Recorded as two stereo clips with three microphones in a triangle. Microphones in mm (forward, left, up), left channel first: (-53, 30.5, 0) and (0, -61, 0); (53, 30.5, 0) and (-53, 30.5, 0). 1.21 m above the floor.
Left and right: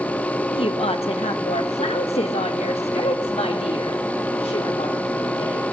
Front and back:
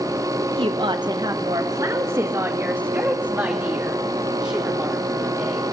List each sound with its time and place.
0.5 s a woman speaking: 150° left, 1.1 m; by 5.7 s 95° left, 4 m